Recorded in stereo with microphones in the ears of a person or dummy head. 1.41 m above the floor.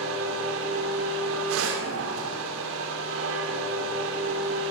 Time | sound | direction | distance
0.0 | a machine running | 70° right (ahead or behind) | 2 m